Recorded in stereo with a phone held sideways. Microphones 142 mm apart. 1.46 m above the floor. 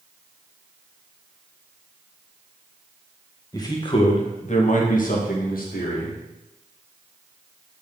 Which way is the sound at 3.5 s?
25° left (ahead or behind).